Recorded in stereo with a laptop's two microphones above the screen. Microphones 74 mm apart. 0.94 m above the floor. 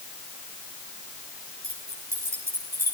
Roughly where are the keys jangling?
Right.